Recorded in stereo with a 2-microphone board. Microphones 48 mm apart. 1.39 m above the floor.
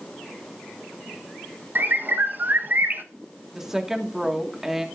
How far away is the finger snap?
I don't hear a finger snap.